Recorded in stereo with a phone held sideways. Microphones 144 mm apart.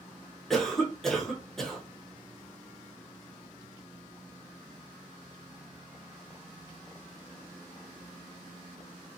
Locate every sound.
0.5 s a cough: centre (ahead or behind), 0.8 m